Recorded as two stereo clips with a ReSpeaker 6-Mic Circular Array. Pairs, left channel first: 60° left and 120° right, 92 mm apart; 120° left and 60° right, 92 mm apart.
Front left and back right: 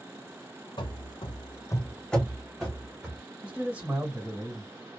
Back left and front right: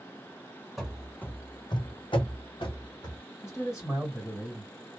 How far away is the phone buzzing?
I don't hear a phone buzzing.